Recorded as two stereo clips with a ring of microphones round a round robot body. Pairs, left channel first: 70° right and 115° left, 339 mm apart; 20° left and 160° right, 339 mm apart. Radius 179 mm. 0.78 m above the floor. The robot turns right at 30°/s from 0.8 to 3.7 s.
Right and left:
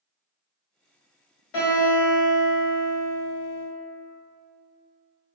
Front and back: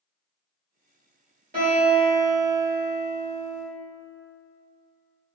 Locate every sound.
1.5 s a guitar: 90° right, 1.5 m; by 3.6 s 25° right, 1.5 m